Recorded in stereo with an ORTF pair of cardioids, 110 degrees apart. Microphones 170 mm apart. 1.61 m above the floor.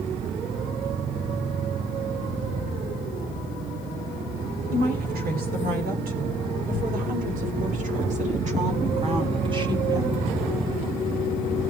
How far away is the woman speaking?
About 8 m.